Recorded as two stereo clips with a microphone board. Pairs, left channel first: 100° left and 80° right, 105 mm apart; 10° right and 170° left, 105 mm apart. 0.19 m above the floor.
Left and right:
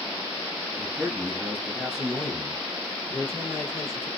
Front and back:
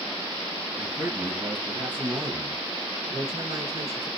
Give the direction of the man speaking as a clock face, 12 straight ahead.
5 o'clock.